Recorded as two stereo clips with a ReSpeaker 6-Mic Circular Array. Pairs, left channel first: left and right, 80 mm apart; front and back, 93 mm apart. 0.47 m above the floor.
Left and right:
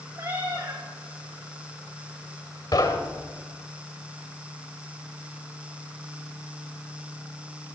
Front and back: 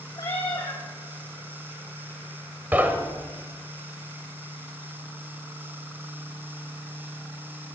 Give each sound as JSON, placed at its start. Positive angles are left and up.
{"t": 0.2, "sound": "a cat meowing", "azimuth_deg": -50, "distance_m": 6.5}
{"t": 2.7, "sound": "knocking", "azimuth_deg": 110, "distance_m": 1.2}